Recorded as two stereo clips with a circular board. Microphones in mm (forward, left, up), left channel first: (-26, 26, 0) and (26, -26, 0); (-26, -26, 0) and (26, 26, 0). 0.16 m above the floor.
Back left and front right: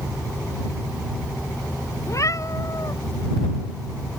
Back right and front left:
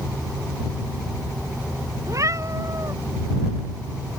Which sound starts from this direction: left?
A cat meowing, at 2.1 s.